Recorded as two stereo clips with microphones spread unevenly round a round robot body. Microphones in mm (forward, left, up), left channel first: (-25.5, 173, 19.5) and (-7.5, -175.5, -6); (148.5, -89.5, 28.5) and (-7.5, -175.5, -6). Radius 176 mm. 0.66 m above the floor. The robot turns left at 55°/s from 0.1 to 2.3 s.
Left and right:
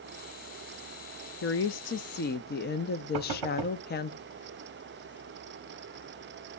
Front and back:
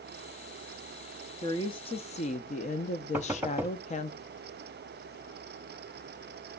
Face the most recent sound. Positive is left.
turn(degrees=-75)